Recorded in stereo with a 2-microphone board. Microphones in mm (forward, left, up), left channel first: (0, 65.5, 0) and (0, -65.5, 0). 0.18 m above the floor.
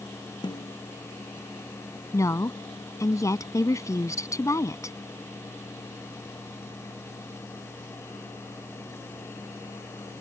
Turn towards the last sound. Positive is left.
turn(degrees=25)  # may be behind; listen again after turning